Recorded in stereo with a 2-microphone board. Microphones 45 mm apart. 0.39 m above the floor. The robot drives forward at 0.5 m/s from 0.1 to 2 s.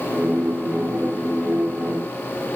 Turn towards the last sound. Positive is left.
No sound to turn to.